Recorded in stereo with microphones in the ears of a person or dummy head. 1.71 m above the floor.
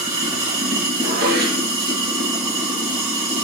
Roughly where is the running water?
Centre.